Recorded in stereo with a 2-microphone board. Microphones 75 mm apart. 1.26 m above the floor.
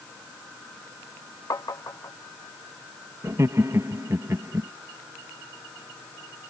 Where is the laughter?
45° right (ahead or behind).